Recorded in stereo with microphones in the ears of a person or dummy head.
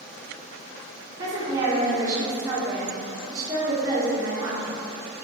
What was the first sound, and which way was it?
A woman speaking, 15° right (ahead or behind).